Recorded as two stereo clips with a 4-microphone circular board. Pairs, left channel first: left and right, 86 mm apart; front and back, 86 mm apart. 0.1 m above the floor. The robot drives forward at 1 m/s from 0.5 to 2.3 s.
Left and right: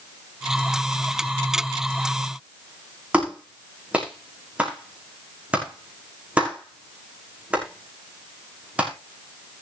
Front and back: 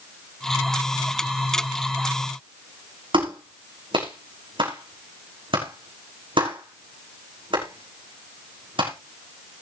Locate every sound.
3.1 s a clap: 165° right, 6 m